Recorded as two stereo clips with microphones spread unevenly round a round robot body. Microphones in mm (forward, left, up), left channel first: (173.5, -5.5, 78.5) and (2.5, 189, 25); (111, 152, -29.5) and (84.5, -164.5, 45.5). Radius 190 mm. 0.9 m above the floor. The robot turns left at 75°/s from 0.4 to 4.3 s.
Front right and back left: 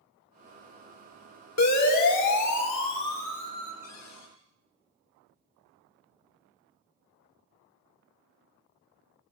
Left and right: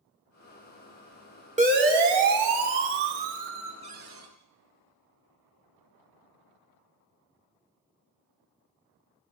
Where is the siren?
25° right, 4.5 m; by 3.7 s 175° right, 3.5 m.